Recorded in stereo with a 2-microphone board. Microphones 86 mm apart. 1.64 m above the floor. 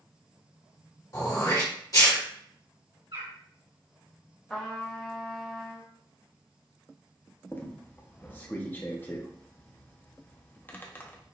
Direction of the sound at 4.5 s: 10° left (ahead or behind).